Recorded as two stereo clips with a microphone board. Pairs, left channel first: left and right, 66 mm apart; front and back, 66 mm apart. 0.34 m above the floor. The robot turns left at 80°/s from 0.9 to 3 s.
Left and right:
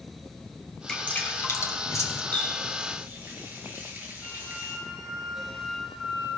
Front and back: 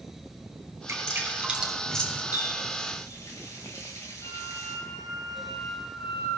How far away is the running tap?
About 4 m.